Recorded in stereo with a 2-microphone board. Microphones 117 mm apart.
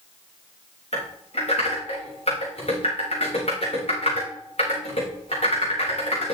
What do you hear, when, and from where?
0.9 s typing on a keyboard: 60° left (ahead or behind), 5 m